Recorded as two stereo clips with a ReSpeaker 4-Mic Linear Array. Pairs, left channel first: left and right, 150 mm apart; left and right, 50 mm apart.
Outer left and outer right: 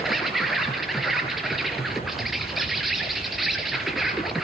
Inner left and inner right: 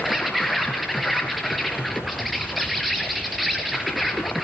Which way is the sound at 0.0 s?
Centre (ahead or behind).